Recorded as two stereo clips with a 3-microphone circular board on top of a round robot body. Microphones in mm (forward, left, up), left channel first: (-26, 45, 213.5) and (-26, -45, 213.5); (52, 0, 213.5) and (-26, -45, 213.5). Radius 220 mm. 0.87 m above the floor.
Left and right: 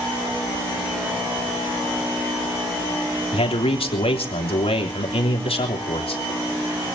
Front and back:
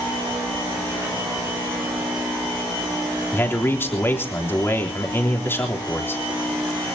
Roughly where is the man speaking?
Left.